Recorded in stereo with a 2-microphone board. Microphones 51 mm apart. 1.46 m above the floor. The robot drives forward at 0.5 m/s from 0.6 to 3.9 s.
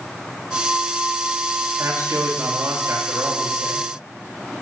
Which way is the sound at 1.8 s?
60° right (ahead or behind).